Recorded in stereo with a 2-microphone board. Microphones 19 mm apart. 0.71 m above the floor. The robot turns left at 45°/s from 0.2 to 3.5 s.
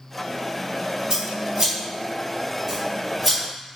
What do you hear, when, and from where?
1.1 s scissors: 30° right (ahead or behind), 1.1 m; by 3.8 s 15° left (ahead or behind), 1.1 m